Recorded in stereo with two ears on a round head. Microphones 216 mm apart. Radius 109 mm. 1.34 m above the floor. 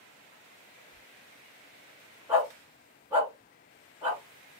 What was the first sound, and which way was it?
Whispering, 35° left (ahead or behind).